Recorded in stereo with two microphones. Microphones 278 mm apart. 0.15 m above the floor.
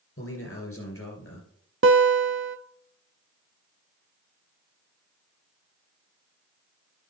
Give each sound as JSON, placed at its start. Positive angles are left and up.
{"t": 0.2, "sound": "a man speaking", "side_deg": 55, "distance_m": 3.0}
{"t": 1.8, "sound": "a guitar", "side_deg": -45, "distance_m": 0.5}